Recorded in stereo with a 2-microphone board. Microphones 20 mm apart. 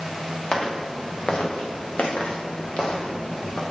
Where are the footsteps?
50° left (ahead or behind), 2 m; by 3.6 s 45° left (ahead or behind), 1.8 m.